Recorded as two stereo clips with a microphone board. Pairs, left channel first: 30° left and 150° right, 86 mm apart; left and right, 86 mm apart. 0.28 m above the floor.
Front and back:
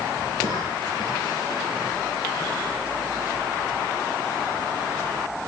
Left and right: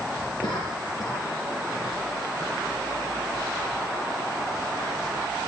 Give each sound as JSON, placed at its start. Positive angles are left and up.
{"t": 0.4, "sound": "a cough", "azimuth_deg": 50, "distance_m": 4.5}